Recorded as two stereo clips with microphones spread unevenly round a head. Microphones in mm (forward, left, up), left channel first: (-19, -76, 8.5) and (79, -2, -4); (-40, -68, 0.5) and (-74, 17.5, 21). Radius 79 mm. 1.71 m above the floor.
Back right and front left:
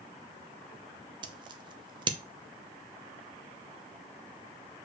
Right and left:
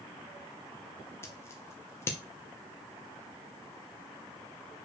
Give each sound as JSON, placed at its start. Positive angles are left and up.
{"t": 1.2, "sound": "scissors", "azimuth_deg": 5, "distance_m": 0.8}